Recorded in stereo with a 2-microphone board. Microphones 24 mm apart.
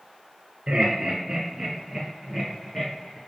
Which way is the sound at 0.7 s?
30° right (ahead or behind).